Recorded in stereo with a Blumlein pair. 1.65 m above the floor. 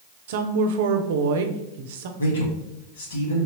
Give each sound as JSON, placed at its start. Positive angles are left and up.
{"t": 0.3, "sound": "a woman speaking", "azimuth_deg": -55, "distance_m": 0.7}
{"t": 2.2, "sound": "a man speaking", "azimuth_deg": 65, "distance_m": 1.8}